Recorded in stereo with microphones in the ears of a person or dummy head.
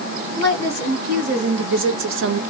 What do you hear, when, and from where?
0.4 s a woman speaking: 40° right (ahead or behind), 1.6 m; by 2.4 s 55° right (ahead or behind), 0.5 m